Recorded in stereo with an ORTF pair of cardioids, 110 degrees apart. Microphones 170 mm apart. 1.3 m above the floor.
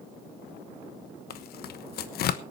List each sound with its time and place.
1.3 s tearing paper: 60° left, 1.1 m